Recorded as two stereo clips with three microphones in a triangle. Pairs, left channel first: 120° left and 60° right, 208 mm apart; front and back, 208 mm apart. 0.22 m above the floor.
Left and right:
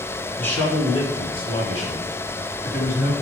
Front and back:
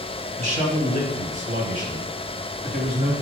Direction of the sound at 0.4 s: 165° right.